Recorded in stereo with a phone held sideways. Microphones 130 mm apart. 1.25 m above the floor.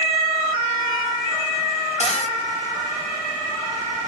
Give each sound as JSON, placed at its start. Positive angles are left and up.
{"t": 2.0, "sound": "a cupboard door", "side_deg": 55, "distance_m": 0.7}